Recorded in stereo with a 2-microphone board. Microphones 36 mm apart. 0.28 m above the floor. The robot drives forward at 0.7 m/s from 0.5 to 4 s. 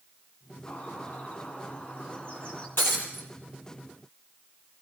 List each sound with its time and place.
0.7 s a bird: 45° left (ahead or behind), 3 m; by 2.7 s 30° left (ahead or behind), 4 m
2.8 s breaking glass: 80° left, 4 m; by 3.3 s 85° left, 4 m